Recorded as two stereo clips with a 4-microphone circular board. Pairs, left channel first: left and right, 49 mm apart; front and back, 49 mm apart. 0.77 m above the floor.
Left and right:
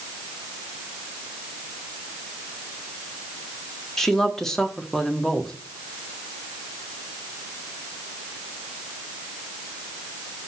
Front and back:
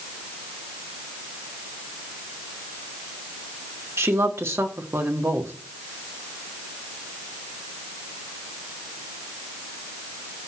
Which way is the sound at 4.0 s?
175° left.